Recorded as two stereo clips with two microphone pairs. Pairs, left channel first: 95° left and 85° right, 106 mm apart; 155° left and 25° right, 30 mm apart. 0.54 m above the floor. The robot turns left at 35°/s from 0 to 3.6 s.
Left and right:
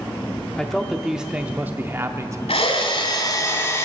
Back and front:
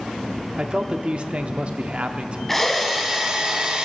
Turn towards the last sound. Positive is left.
turn(degrees=35)